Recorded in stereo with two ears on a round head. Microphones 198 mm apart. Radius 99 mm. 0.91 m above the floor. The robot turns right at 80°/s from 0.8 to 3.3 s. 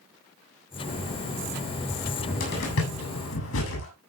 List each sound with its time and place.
1.9 s a cupboard door: centre (ahead or behind), 7 m; by 3.9 s 65° left (ahead or behind), 7 m